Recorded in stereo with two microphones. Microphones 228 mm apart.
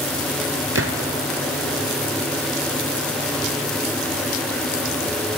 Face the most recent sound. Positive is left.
turn(degrees=-75)  # may be behind; listen again after turning